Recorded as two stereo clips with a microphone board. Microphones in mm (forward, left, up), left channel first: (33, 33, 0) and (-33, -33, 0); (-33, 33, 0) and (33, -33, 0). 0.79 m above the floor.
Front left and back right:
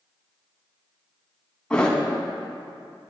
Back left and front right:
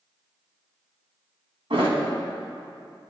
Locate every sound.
1.7 s a thud: 35° right, 2.5 m